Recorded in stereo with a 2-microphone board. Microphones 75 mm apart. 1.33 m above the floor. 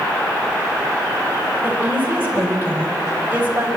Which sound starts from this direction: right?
A woman speaking, at 1.6 s.